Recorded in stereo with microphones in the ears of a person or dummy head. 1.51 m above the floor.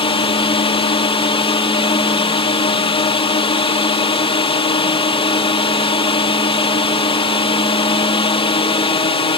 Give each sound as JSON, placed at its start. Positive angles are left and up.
{"t": 0.0, "sound": "a drone", "side_deg": 30}